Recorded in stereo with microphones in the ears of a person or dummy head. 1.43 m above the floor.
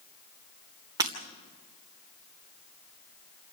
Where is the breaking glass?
20° right (ahead or behind), 3 m.